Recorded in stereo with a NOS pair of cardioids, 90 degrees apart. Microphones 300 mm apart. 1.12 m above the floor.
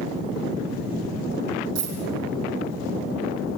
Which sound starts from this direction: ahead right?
A dropped coin, at 1.8 s.